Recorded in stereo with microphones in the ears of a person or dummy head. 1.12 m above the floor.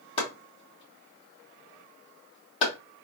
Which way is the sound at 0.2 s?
35° left (ahead or behind).